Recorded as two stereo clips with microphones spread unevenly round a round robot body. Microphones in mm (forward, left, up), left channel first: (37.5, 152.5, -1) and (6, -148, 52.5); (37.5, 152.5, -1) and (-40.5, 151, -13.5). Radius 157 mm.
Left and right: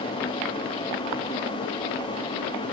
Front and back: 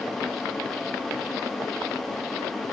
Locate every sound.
Only background noise.